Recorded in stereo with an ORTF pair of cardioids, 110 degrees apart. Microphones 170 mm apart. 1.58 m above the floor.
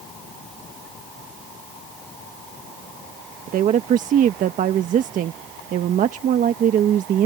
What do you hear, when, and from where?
3.5 s a woman speaking: 50° right